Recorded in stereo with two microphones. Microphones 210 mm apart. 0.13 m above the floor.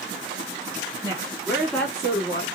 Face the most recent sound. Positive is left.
turn(degrees=30)  # may be behind; listen again after turning